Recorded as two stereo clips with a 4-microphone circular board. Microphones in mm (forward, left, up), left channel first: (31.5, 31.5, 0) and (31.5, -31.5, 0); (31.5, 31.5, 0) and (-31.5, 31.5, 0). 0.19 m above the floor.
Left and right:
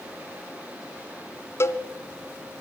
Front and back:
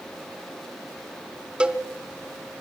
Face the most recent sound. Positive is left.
turn(degrees=110)